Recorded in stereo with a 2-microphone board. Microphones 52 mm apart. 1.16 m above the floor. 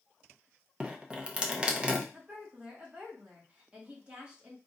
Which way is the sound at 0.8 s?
20° right (ahead or behind).